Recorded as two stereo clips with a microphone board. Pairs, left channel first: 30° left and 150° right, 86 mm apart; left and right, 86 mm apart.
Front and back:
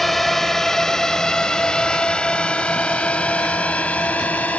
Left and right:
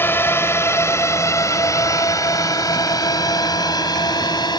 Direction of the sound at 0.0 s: 115° left.